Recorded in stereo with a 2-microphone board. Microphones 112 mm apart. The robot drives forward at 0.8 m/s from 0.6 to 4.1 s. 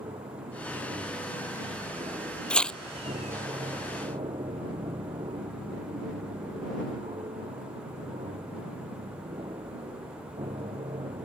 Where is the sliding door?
I don't hear a sliding door.